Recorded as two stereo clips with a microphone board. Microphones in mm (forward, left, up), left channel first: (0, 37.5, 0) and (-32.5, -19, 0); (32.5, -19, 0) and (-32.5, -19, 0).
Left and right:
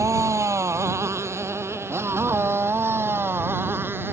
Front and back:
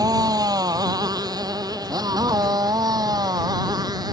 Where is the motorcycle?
160° right; by 4.1 s 175° right.